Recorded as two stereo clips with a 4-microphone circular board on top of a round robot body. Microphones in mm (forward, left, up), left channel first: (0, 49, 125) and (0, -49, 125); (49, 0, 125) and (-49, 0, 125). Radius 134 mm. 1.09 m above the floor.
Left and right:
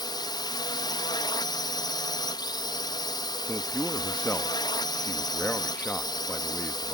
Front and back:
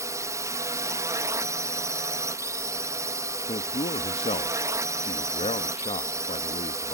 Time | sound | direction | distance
0.0 | a drone | 125° left | ?
3.5 | a man speaking | 10° left | ?